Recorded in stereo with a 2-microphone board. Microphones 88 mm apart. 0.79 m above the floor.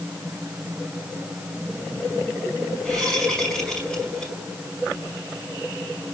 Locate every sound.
2.9 s a whoosh: 10° left (ahead or behind), 5.5 m